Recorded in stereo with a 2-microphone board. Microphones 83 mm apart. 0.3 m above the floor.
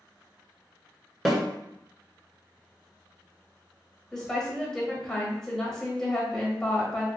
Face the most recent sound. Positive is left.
turn(degrees=5)  # may be behind; listen again after turning